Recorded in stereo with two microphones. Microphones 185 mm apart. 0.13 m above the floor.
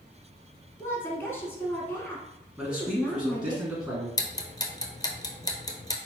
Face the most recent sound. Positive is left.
turn(degrees=20)  # may be behind; listen again after turning